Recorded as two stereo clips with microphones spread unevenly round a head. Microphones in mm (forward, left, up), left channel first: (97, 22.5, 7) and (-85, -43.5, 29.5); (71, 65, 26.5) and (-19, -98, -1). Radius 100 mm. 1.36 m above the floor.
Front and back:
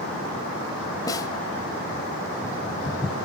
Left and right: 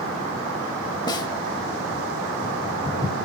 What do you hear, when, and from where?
1.1 s a snare drum: 90° left, 1.3 m